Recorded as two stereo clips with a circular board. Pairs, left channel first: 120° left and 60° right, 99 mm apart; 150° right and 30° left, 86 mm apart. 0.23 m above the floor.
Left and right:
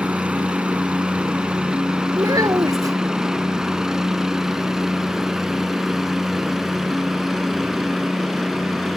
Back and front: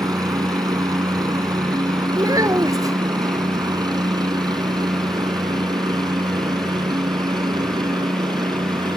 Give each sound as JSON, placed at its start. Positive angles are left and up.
{"t": 0.0, "sound": "a helicopter", "azimuth_deg": 10}
{"t": 2.2, "sound": "a child speaking", "azimuth_deg": -10}